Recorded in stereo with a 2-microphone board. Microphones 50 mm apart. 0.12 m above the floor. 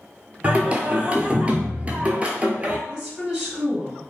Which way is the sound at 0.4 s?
25° right (ahead or behind).